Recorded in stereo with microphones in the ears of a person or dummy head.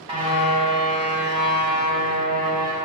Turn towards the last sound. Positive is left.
turn(degrees=-40)  # may be behind; listen again after turning